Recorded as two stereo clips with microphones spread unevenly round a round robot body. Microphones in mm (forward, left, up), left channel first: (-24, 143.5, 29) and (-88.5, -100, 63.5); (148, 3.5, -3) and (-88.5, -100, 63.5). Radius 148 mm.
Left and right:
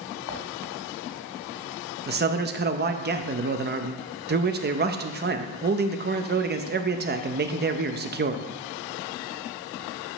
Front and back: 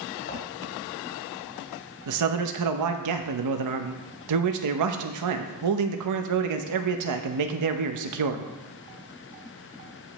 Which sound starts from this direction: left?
Footsteps, at 0.3 s.